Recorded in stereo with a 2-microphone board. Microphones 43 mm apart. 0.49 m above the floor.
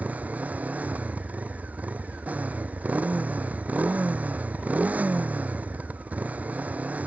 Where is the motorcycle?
35° right (ahead or behind).